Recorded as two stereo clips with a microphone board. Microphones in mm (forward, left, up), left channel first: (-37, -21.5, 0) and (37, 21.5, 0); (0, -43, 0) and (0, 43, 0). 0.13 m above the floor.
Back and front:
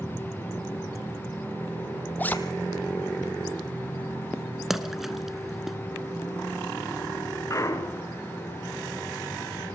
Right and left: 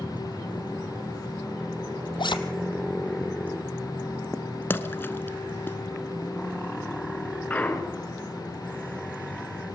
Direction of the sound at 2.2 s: 80° right.